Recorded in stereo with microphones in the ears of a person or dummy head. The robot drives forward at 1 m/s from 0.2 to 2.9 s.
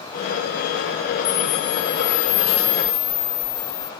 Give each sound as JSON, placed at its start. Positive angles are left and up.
{"t": 1.2, "sound": "a camera shutter", "side_deg": 45}